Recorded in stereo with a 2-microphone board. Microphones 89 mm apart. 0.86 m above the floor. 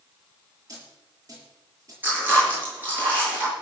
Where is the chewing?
20° right (ahead or behind), 8.5 m.